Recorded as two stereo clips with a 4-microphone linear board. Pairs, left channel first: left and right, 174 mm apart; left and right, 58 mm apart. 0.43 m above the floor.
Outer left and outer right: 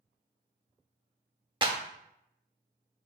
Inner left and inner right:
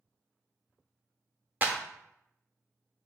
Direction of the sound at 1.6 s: 25° right (ahead or behind).